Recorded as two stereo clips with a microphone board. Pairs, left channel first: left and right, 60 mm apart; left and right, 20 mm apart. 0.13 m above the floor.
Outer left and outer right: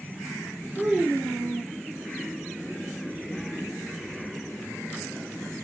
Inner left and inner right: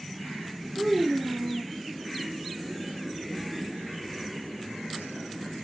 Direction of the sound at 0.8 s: 30° right (ahead or behind).